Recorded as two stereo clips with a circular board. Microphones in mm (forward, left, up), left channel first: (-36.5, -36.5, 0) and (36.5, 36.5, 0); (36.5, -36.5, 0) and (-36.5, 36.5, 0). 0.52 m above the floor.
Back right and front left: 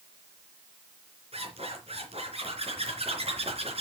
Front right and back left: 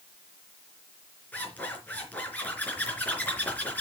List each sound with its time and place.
1.3 s a zipper: 30° left, 3.5 m